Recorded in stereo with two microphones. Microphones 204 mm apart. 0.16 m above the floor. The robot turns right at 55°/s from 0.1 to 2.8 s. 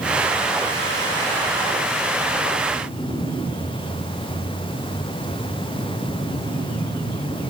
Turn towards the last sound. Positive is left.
No sound to turn to.